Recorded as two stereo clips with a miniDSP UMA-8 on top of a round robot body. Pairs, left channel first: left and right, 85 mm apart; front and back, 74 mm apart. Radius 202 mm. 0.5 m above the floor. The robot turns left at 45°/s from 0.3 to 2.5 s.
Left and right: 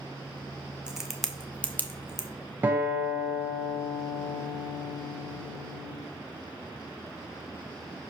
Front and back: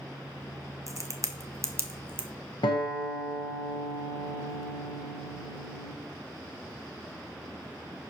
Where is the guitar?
20° right, 1.5 m.